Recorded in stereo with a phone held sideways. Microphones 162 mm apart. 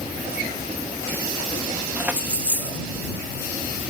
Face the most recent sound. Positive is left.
turn(degrees=-10)  # may be behind; listen again after turning